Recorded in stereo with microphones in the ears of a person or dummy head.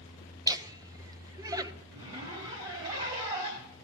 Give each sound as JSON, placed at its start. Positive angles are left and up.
{"t": 0.5, "sound": "laughter", "side_deg": -25, "distance_m": 0.8}
{"t": 1.9, "sound": "a zipper", "side_deg": -35, "distance_m": 1.6}